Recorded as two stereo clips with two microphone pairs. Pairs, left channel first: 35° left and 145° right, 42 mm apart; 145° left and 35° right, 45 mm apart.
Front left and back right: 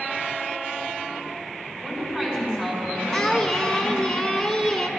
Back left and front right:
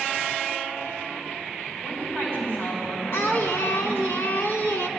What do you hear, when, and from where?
1.8 s a woman speaking: 150° left, 3 m
3.1 s singing: 125° left, 0.9 m